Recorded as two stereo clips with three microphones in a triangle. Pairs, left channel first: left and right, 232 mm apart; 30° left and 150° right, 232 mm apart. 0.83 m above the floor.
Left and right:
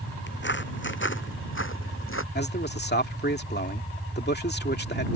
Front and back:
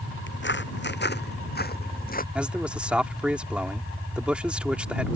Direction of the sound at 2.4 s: 125° left.